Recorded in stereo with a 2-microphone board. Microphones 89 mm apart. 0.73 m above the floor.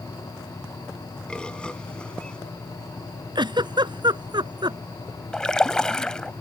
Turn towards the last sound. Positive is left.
turn(degrees=10)  # may be behind; listen again after turning